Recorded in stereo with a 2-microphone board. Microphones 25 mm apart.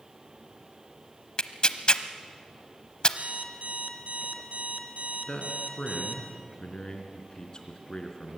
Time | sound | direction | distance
1.4 | tearing paper | 35° left (ahead or behind) | 0.8 m
3.2 | an alarm clock | 60° right (ahead or behind) | 1.7 m
5.3 | a man speaking | 35° left (ahead or behind) | 3 m